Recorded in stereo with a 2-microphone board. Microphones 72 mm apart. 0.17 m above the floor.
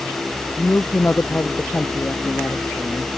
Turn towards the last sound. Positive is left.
turn(degrees=25)  # may be behind; listen again after turning